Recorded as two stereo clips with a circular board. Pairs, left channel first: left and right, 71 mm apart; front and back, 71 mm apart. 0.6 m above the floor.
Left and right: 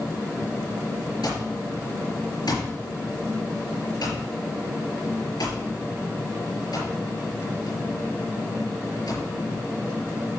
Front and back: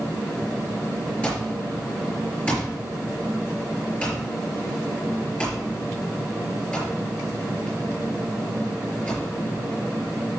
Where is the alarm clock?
70° left, 5.5 m.